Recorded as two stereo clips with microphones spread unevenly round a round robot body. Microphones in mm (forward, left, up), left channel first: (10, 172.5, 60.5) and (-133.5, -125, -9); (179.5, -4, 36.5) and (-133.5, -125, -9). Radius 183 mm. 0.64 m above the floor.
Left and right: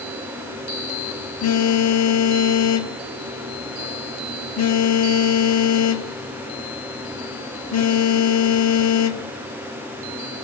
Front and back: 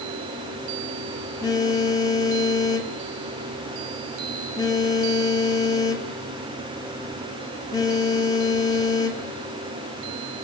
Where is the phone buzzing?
105° left, 1.7 m.